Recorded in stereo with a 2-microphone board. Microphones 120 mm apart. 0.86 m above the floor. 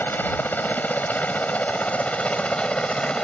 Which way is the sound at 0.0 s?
15° left (ahead or behind).